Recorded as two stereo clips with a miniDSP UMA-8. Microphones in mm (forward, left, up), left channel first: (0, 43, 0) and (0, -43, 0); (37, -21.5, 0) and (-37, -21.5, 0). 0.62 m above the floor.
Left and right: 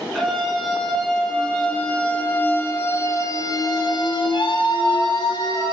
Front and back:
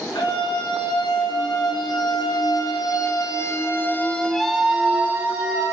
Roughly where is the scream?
Ahead.